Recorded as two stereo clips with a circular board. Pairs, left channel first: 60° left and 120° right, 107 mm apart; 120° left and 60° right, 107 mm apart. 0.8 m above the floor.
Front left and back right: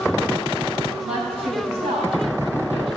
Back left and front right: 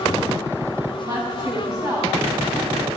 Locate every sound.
1.0 s a woman speaking: 110° right, 4.5 m; by 2.9 s 125° right, 4.5 m